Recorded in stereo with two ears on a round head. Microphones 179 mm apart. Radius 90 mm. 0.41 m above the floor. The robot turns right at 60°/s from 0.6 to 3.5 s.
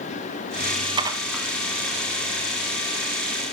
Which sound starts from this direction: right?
Dishes clattering, at 1.0 s.